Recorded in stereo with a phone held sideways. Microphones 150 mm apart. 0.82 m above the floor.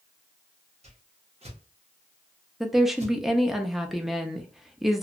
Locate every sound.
0.8 s a whoosh: 45° right (ahead or behind), 1.0 m
2.6 s a woman speaking: centre (ahead or behind), 0.6 m